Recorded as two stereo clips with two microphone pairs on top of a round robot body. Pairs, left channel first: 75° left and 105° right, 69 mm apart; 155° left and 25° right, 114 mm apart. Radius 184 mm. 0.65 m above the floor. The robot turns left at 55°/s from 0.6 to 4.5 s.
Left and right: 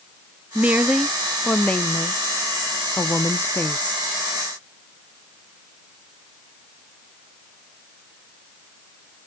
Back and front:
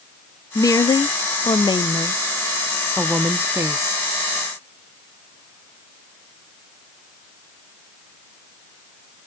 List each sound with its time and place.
0.6 s a woman speaking: 165° right, 0.6 m; by 4.0 s 10° left, 0.6 m